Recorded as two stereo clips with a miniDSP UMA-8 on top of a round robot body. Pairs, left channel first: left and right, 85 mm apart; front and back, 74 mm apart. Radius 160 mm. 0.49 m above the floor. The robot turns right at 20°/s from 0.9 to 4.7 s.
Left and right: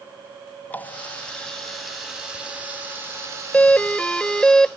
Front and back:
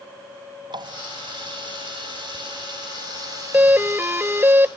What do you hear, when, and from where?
0.7 s a running tap: 160° left; by 4.5 s 125° right
3.5 s a doorbell: 145° left; by 4.8 s 165° left